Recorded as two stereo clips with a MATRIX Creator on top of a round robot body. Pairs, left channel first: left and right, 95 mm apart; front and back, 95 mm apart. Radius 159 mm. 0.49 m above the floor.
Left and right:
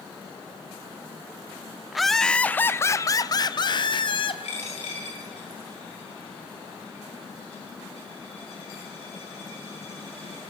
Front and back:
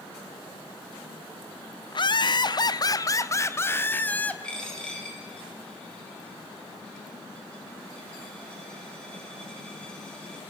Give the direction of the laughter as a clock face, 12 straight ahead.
12 o'clock.